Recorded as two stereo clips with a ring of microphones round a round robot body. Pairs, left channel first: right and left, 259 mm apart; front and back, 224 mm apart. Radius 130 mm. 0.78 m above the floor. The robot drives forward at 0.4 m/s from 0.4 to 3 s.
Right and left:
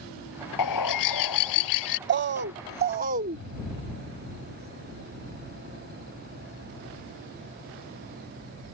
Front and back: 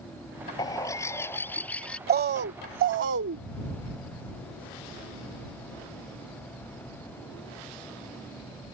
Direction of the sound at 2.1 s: 135° left.